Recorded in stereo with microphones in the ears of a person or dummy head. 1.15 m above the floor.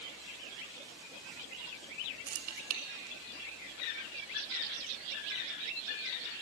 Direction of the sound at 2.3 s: 45° right (ahead or behind).